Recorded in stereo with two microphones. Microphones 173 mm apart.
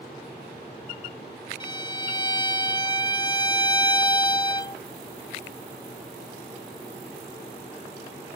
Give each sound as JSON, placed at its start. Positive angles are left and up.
{"t": 1.6, "sound": "a violin", "side_deg": 25}